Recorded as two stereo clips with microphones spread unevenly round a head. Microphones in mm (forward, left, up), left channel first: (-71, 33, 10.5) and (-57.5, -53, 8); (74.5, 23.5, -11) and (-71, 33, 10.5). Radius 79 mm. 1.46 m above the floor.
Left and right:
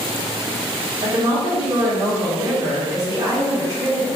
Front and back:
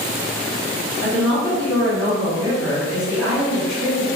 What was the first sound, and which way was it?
A woman speaking, 95° right.